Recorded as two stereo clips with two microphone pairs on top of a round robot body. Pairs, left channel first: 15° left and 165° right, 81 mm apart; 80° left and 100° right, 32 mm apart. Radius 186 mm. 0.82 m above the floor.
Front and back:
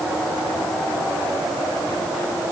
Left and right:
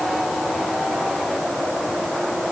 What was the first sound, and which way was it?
Only background noise.